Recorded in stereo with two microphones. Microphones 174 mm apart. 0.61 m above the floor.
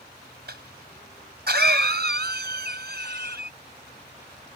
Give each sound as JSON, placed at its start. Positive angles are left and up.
{"t": 0.5, "sound": "a cough", "side_deg": -70}